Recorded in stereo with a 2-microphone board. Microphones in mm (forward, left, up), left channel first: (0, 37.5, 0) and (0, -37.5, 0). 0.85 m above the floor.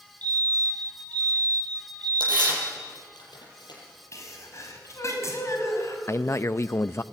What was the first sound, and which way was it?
A fire alarm, 20° left (ahead or behind).